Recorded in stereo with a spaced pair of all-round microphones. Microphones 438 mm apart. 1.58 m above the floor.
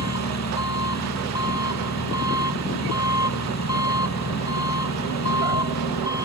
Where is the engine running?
35° left (ahead or behind).